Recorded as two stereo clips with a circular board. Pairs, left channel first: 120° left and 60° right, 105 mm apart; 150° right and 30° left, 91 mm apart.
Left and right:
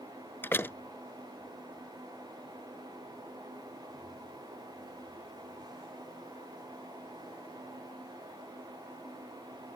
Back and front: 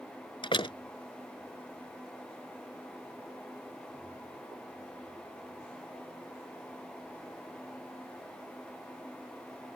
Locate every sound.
0.4 s a door slam: 170° right